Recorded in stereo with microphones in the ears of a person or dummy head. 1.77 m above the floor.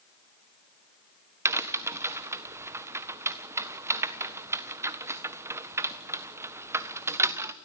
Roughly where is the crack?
Centre.